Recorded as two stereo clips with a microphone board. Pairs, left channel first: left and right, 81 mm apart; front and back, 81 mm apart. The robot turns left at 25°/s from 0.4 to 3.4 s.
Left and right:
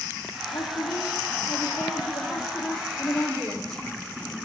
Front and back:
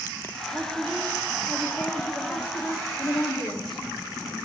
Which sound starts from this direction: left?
A woman speaking, at 0.5 s.